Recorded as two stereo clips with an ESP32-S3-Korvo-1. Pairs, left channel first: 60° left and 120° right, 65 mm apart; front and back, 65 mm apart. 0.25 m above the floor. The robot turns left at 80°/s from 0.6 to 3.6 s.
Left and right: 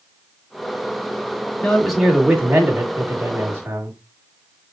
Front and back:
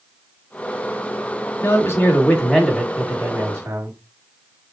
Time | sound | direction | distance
1.6 | a man speaking | 5° right | 1.9 m